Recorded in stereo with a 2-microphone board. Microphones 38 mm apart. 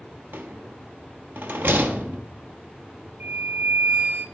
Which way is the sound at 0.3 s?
60° right (ahead or behind).